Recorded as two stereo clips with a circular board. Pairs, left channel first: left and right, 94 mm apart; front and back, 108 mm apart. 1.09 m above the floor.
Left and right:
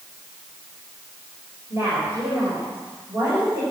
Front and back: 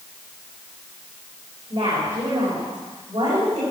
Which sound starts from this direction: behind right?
A woman speaking, at 1.7 s.